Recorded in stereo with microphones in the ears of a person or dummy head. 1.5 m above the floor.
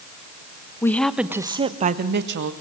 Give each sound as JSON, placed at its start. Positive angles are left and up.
{"t": 0.8, "sound": "a woman speaking", "side_deg": 20, "distance_m": 1.4}